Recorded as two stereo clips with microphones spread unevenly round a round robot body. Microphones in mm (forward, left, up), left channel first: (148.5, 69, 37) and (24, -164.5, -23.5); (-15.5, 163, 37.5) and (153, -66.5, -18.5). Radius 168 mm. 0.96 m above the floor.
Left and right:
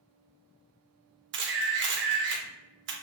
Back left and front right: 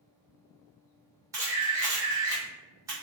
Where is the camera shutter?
125° right, 0.6 m.